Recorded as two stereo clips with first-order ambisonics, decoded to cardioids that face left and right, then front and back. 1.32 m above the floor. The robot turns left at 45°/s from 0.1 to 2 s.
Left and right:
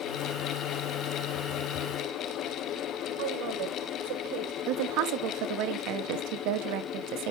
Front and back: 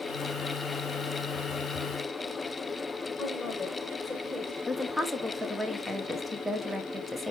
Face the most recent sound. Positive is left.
turn(degrees=-90)